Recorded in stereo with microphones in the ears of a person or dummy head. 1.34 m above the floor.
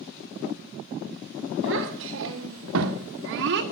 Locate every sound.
1.6 s a child speaking: 65° right (ahead or behind), 2.5 m; by 3.6 s 60° right (ahead or behind), 1.7 m